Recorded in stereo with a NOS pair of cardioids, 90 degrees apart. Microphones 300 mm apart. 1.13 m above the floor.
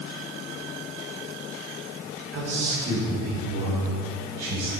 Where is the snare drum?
No snare drum in this recording.